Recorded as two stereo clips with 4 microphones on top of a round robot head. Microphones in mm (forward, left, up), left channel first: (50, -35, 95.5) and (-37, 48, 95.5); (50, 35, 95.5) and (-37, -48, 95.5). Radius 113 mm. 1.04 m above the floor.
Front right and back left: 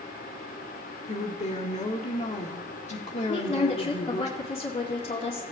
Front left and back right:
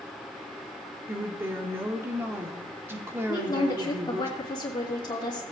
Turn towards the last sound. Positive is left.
turn(degrees=-10)